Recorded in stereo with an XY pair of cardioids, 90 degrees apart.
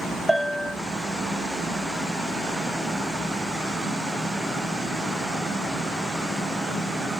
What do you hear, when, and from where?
0.3 s a bell: 15° left, 1.3 m